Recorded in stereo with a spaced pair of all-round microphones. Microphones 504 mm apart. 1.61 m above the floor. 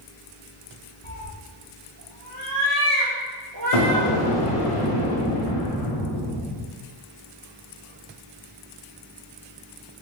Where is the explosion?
85° left, 0.8 m.